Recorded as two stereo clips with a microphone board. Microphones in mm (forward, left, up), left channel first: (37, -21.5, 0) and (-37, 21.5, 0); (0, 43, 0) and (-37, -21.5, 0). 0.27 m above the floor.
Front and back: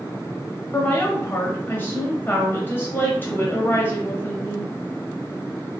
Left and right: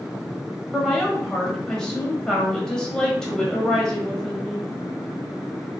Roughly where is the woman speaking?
Ahead.